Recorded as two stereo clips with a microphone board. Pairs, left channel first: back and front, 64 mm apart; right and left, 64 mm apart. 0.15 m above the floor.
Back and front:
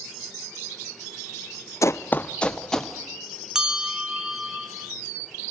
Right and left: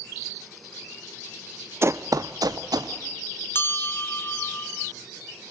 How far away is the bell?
About 1.8 m.